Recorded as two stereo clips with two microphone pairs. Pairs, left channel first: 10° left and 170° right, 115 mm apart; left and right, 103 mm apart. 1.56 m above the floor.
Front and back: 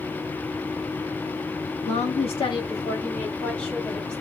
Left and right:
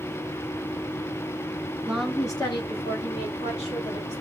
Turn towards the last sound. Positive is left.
turn(degrees=95)